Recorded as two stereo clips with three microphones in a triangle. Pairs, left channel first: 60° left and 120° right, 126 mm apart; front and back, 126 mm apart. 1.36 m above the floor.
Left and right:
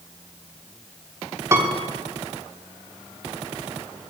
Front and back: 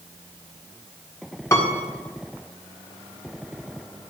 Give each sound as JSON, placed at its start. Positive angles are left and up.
{"t": 1.5, "sound": "a piano", "azimuth_deg": -60, "distance_m": 1.3}